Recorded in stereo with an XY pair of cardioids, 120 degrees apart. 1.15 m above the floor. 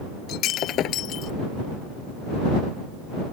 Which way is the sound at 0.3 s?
65° left.